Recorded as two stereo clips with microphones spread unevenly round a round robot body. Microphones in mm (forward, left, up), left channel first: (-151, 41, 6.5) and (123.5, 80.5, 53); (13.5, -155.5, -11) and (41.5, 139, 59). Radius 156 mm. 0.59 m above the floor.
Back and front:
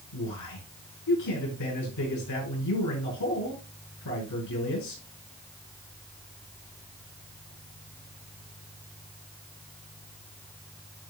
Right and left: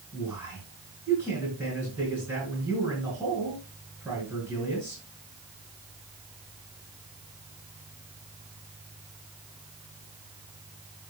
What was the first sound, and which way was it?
A man speaking, 170° left.